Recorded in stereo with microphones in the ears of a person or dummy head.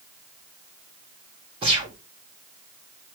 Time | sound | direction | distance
1.6 | a gunshot | 30° right (ahead or behind) | 1.6 m